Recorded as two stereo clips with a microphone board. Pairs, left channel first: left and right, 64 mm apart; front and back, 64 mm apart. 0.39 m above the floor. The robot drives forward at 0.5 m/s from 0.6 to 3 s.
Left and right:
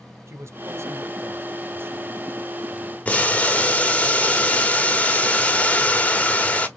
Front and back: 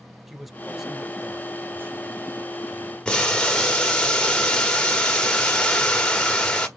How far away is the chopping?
No chopping in this recording.